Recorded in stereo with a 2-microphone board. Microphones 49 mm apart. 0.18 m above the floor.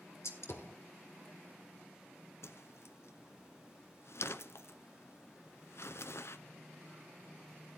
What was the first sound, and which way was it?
A gunshot, 60° left (ahead or behind).